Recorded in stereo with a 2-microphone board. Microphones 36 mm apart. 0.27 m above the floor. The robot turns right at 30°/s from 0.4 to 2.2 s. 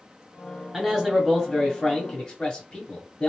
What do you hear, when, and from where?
0.7 s a man speaking: straight ahead, 1.3 m; by 3.3 s 45° left, 1.3 m